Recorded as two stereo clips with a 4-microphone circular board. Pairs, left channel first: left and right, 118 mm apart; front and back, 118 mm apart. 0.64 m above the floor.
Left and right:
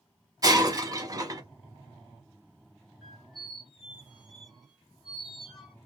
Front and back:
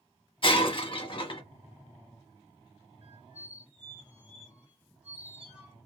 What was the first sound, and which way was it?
Breaking glass, 35° right.